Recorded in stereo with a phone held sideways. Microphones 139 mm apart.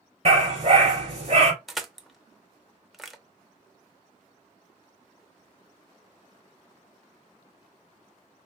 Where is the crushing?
Centre (ahead or behind), 0.5 m.